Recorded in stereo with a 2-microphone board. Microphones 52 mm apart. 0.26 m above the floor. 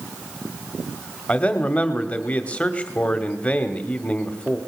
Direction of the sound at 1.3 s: 25° left (ahead or behind).